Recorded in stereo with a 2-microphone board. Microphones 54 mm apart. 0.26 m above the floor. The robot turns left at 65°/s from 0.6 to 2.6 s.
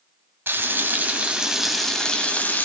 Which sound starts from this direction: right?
Frying, at 0.5 s.